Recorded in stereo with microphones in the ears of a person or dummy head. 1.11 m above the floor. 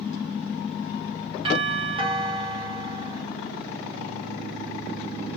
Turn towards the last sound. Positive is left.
turn(degrees=-25)  # may be behind; listen again after turning